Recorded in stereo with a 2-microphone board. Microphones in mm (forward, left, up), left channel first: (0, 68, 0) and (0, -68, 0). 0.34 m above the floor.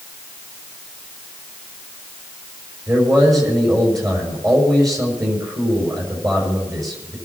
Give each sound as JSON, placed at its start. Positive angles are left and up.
{"t": 2.9, "sound": "a man speaking", "side_deg": -25, "distance_m": 5.5}